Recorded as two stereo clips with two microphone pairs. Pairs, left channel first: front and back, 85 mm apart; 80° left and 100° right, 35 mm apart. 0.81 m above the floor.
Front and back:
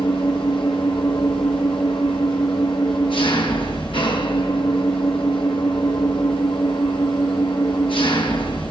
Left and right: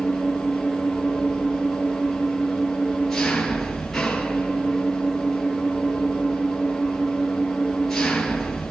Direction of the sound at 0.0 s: 5° right.